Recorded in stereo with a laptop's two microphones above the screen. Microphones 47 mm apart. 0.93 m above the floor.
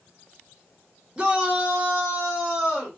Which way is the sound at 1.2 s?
20° right (ahead or behind).